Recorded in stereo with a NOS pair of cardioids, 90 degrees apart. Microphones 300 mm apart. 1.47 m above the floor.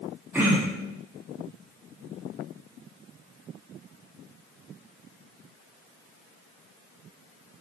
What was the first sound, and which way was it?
Throat clearing, 5° right.